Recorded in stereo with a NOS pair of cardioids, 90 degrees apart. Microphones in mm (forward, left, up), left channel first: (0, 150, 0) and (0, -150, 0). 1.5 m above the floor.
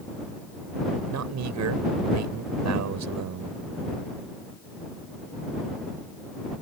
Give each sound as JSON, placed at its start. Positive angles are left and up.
{"t": 1.1, "sound": "a man speaking", "azimuth_deg": -65}